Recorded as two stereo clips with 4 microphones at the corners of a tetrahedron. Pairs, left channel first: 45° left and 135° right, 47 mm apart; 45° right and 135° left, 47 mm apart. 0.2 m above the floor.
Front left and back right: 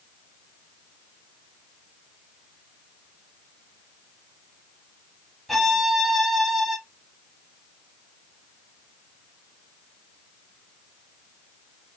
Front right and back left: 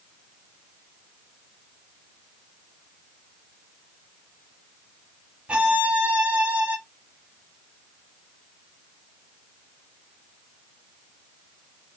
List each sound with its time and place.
5.5 s a violin: 130° left, 0.6 m